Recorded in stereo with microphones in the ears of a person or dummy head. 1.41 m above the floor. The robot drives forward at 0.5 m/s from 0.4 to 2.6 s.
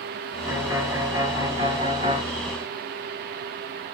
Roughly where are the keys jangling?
I don't hear keys jangling.